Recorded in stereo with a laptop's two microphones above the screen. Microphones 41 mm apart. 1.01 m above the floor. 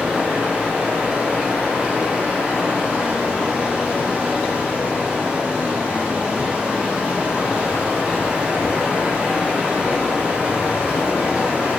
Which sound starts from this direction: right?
Running water, at 0.0 s.